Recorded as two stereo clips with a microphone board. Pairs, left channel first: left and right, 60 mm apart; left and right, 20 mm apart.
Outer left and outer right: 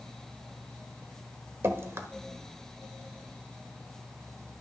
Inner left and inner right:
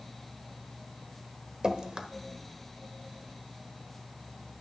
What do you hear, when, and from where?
1.6 s dripping: 50° right (ahead or behind), 1.1 m